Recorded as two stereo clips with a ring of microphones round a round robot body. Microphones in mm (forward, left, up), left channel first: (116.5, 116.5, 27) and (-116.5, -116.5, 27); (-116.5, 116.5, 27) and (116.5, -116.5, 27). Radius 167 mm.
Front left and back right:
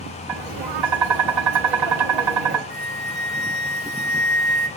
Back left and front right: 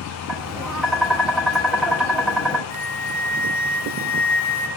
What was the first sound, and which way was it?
Tapping, 135° right.